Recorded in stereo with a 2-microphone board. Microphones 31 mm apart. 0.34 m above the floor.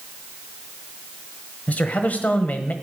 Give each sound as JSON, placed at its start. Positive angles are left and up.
{"t": 1.7, "sound": "a man speaking", "side_deg": 50, "distance_m": 1.3}